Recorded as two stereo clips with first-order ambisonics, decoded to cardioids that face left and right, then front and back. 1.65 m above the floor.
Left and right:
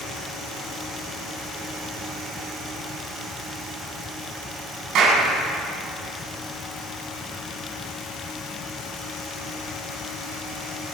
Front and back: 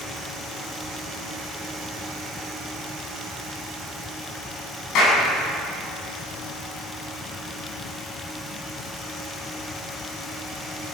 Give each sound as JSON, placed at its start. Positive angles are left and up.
{"t": 5.0, "sound": "a clap", "azimuth_deg": -45, "distance_m": 10.0}